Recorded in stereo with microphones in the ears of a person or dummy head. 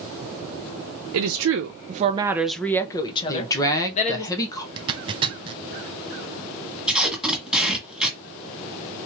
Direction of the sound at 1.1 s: 85° right.